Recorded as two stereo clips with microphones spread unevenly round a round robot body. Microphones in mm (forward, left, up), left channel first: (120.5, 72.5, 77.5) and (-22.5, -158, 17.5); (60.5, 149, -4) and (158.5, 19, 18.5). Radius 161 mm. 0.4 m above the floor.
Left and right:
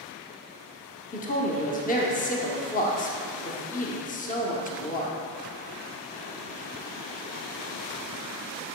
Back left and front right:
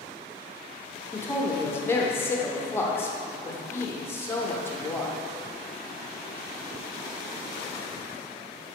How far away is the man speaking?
About 0.8 m.